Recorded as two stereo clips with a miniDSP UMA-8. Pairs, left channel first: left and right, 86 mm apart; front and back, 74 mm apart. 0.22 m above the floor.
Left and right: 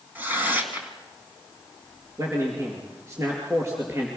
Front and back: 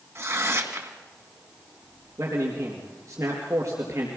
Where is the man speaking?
140° right, 4 m.